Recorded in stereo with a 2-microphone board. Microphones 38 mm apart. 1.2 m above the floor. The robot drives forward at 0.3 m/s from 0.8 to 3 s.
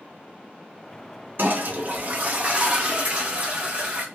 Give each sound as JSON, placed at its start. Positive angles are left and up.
{"t": 1.4, "sound": "a toilet flushing", "side_deg": -60, "distance_m": 0.6}